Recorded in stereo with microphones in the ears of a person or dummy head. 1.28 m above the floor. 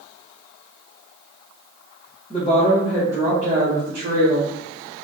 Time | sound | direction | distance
2.3 | a woman speaking | 30° left (ahead or behind) | 0.7 m